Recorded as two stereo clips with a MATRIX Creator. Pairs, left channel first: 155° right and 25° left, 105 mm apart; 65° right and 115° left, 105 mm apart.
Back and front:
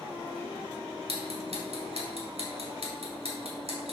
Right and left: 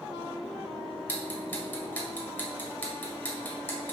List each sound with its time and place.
1.1 s ticking: 5° left, 2.0 m